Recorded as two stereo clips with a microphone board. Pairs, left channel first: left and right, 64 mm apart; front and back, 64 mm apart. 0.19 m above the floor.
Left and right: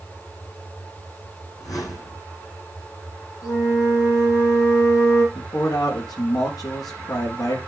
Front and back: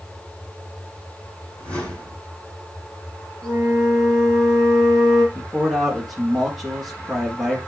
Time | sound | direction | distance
1.6 | a whoosh | 70° left | 7 m
3.4 | a flute | 75° left | 5 m
5.3 | a man speaking | 90° left | 3.5 m